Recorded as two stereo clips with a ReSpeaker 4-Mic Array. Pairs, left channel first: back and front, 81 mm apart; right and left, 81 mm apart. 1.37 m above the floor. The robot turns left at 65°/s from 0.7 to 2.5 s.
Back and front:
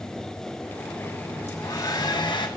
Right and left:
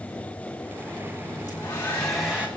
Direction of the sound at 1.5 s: 135° right.